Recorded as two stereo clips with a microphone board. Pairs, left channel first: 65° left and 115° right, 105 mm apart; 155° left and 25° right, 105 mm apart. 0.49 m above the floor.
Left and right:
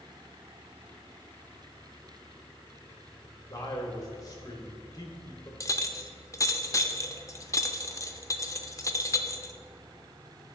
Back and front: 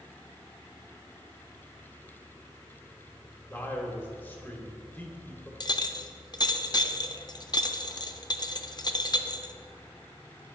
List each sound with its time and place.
3.5 s a man speaking: 95° left, 1.3 m
5.6 s a clink: 120° left, 0.5 m